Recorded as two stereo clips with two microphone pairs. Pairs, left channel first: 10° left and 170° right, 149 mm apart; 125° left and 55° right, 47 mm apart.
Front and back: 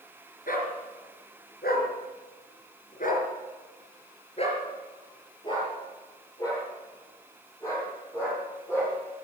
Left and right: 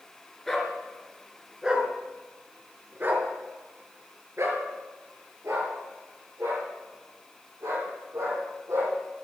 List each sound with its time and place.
0.5 s a dog barking: 35° left, 3 m; by 8.9 s 65° right, 7 m